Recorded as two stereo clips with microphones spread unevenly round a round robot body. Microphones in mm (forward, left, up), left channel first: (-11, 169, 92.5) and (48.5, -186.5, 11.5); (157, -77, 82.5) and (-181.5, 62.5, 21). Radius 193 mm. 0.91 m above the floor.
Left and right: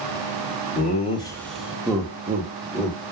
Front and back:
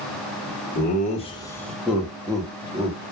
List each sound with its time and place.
0.8 s laughter: 30° left, 0.6 m; by 3.0 s 135° right, 1.1 m